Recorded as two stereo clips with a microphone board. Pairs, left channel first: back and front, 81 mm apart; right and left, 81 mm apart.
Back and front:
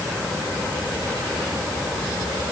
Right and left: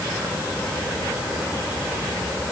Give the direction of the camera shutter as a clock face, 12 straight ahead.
No camera shutter in this recording.